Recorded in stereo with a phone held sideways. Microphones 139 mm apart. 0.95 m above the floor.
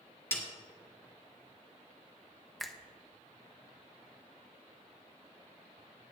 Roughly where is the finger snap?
Centre.